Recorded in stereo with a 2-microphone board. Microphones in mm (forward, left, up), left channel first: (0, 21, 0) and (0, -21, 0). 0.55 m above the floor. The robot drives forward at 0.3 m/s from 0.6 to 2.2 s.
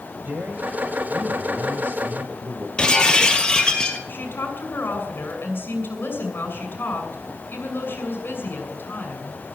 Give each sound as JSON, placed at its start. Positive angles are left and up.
{"t": 0.2, "sound": "a man speaking", "side_deg": -55, "distance_m": 2.5}
{"t": 2.8, "sound": "breaking glass", "side_deg": 20, "distance_m": 2.0}
{"t": 4.1, "sound": "a woman speaking", "side_deg": 55, "distance_m": 6.5}